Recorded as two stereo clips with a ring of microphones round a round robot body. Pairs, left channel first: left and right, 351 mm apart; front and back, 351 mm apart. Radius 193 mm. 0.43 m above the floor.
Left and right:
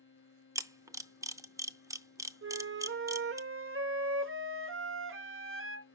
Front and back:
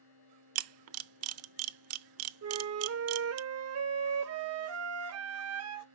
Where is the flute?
140° right, 0.9 m.